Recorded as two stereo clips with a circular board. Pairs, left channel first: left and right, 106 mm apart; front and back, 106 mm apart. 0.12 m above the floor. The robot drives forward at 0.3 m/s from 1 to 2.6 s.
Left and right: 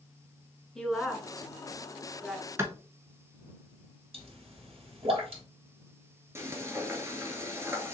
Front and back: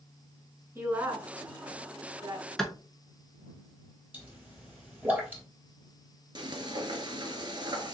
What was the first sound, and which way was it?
A woman speaking, 170° left.